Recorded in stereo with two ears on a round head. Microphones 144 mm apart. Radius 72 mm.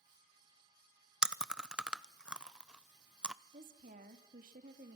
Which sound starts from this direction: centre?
Chewing, at 1.2 s.